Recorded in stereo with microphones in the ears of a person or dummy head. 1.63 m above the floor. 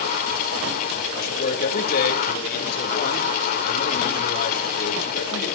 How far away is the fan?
About 1.8 m.